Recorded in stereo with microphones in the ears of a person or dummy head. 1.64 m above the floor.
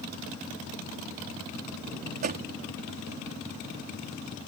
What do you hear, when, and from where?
2.2 s a door slam: 45° right (ahead or behind)